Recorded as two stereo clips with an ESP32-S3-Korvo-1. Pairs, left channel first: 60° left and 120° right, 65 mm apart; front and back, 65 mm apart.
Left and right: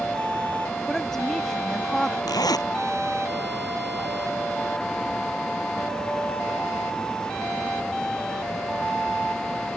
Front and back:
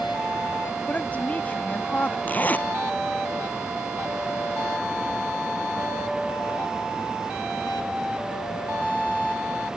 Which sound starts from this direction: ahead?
A woman speaking, at 0.9 s.